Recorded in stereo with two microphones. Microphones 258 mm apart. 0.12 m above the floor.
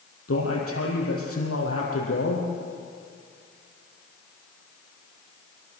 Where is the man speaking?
55° left (ahead or behind), 5 m.